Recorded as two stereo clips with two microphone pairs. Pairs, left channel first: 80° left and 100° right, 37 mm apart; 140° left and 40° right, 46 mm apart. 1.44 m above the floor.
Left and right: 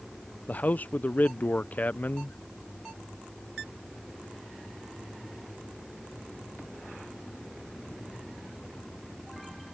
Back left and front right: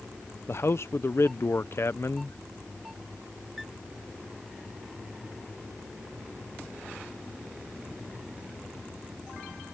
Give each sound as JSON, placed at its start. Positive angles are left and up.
{"t": 0.5, "sound": "a man speaking", "azimuth_deg": 115}